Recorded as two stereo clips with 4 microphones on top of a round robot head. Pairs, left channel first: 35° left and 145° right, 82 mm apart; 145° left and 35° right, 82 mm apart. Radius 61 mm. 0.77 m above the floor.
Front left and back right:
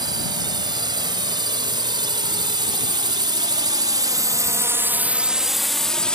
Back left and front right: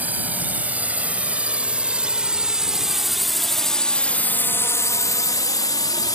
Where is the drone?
105° right; by 6.2 s 115° left.